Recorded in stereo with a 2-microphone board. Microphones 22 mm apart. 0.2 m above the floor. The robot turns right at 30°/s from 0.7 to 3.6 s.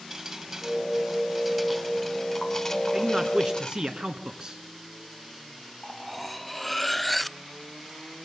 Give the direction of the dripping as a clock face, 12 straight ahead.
1 o'clock.